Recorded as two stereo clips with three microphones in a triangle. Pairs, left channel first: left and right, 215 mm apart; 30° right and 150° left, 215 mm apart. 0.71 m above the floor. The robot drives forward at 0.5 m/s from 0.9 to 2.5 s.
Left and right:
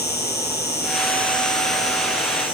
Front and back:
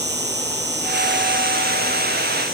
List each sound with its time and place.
0.0 s an insect: 120° left, 0.7 m; by 2.6 s 155° left, 1.3 m